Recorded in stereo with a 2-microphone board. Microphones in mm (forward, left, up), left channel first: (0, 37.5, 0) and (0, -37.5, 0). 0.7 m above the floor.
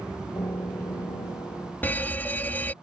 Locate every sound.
0.3 s a piano: 75° left (ahead or behind)
1.8 s a fire alarm: 25° left (ahead or behind)